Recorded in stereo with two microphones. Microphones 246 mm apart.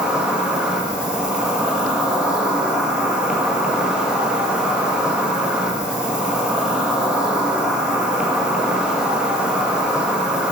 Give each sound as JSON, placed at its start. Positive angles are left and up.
{"t": 0.0, "sound": "an insect", "side_deg": -5, "distance_m": 1.0}